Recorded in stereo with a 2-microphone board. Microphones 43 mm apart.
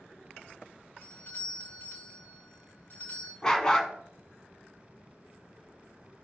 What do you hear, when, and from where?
1.0 s a doorbell: 50° left (ahead or behind), 2.5 m
3.4 s a dog barking: 15° left (ahead or behind), 1.0 m